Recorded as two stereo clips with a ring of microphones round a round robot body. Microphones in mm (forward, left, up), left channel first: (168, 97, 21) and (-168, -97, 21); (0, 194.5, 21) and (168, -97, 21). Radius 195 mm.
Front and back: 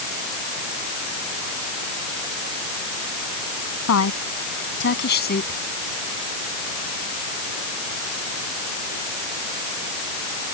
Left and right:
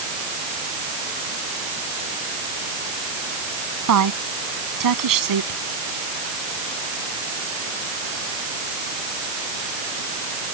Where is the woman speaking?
25° right; by 5.6 s 40° right.